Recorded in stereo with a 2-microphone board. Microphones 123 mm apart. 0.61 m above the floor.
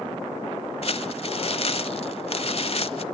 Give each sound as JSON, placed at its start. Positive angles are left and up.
{"t": 0.8, "sound": "crumpling", "side_deg": 50, "distance_m": 0.9}